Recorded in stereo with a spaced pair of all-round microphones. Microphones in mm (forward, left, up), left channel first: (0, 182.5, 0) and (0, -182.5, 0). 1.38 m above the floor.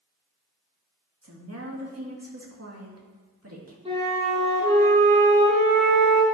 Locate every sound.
1.2 s a woman speaking: 40° right (ahead or behind), 1.8 m
3.9 s a flute: 15° right (ahead or behind), 3 m